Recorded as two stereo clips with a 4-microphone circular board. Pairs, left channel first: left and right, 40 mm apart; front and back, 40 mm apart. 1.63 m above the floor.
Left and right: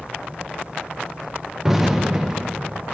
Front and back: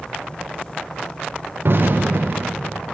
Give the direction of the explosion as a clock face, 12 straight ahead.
6 o'clock.